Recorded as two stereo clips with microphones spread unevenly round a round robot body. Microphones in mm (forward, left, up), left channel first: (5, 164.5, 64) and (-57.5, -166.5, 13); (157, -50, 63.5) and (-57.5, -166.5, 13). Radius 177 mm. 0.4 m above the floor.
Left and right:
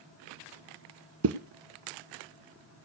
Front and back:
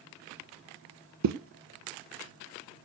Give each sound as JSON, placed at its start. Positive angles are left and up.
{"t": 1.2, "sound": "a zipper", "azimuth_deg": -150, "distance_m": 1.1}